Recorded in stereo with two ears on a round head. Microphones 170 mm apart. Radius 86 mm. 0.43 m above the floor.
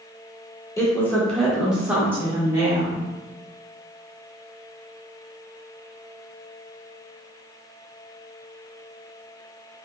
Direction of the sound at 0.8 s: 15° left (ahead or behind).